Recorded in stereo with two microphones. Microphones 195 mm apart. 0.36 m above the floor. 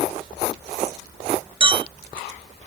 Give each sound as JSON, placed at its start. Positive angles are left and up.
{"t": 1.6, "sound": "a clink", "side_deg": -30, "distance_m": 0.7}